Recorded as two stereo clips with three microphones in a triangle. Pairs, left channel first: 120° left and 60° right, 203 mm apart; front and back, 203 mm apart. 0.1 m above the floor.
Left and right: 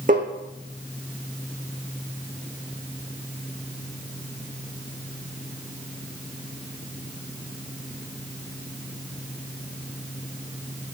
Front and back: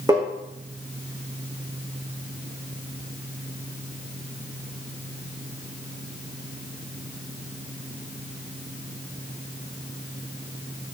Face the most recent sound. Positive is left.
turn(degrees=-110)